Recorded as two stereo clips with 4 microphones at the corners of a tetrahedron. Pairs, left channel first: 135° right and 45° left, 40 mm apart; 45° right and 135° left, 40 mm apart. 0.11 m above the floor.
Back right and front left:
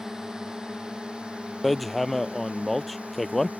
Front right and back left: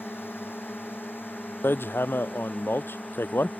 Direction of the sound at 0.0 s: 30° right.